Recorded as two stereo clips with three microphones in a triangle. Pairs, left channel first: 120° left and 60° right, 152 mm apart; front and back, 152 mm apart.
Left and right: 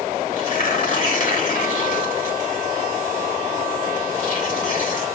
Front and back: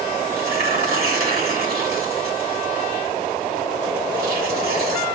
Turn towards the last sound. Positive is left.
turn(degrees=160)